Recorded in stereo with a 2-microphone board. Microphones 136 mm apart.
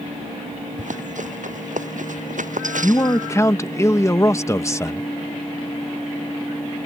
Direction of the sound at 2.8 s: 20° left (ahead or behind).